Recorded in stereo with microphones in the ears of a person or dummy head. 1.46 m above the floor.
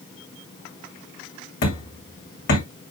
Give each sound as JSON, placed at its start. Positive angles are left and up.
{"t": 1.6, "sound": "hammering", "side_deg": 60, "distance_m": 4.5}